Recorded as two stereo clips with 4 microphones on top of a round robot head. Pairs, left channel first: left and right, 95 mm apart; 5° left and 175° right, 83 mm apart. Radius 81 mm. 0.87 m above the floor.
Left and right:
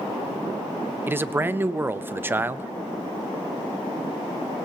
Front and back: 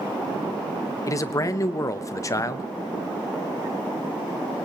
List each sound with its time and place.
1.1 s a man speaking: 30° right, 0.7 m